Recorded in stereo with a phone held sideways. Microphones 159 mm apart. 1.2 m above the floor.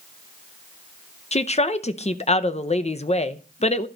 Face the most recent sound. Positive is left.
turn(degrees=45)  # may be behind; listen again after turning